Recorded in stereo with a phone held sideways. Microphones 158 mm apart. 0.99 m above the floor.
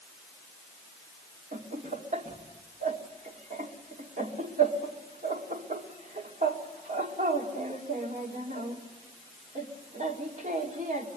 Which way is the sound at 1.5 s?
55° right (ahead or behind).